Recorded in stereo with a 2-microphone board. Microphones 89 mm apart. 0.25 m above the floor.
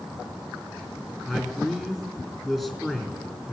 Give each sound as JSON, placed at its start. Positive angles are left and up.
{"t": 1.2, "sound": "a man speaking", "side_deg": 0, "distance_m": 3.0}